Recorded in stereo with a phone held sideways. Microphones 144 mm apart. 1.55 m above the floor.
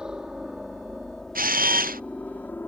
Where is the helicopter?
5° right (ahead or behind); by 2.7 s 15° left (ahead or behind).